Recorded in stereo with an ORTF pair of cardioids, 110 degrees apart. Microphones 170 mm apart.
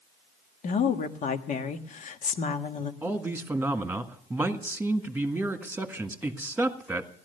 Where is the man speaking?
10° right, 1.7 m.